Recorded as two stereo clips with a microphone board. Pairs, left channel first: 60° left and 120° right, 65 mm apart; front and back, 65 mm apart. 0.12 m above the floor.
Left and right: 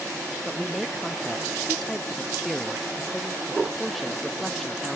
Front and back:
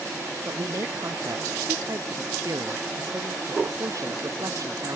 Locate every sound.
0.5 s a man speaking: 150° left